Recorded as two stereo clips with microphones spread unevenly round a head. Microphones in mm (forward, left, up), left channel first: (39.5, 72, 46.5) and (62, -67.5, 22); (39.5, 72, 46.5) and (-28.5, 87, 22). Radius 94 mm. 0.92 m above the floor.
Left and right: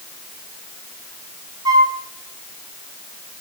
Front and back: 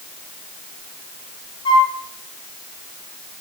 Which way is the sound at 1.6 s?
15° right.